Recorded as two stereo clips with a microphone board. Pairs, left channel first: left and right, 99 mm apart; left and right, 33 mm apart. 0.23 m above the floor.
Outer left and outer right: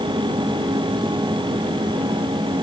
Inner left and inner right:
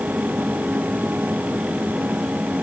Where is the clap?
No clap in this recording.